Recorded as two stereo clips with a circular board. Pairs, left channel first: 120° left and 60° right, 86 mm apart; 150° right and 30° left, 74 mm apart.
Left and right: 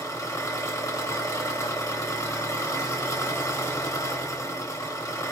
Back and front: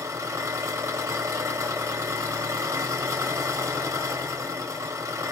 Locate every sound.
0.0 s an engine running: 70° left, 1.1 m